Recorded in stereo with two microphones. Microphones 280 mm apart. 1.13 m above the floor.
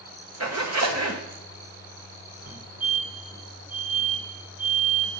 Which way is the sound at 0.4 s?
65° right (ahead or behind).